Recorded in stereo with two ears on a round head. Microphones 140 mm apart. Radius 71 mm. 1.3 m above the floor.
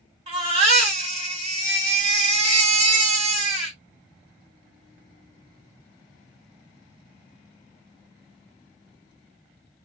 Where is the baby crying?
40° right (ahead or behind), 1.5 m.